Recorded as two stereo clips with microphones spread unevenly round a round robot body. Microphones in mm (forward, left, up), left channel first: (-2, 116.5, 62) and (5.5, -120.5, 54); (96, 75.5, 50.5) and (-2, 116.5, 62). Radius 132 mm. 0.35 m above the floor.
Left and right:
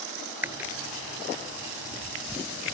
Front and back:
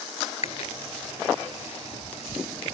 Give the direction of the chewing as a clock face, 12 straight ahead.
12 o'clock.